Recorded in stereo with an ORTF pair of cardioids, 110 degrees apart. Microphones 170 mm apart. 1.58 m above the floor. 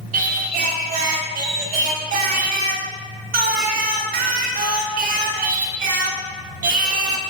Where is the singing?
55° right, 0.6 m.